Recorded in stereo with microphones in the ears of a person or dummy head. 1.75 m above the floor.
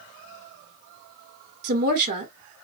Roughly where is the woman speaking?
Right.